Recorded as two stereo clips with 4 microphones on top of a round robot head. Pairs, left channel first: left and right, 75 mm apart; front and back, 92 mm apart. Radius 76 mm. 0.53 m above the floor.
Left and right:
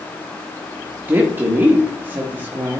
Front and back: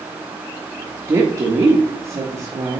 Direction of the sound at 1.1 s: 140° right.